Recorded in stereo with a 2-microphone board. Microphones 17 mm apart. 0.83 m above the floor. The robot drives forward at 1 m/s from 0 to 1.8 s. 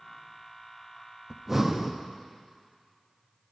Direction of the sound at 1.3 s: 20° right (ahead or behind).